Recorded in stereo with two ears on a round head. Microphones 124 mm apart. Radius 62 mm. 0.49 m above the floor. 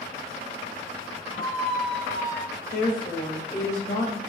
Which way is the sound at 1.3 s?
50° right (ahead or behind).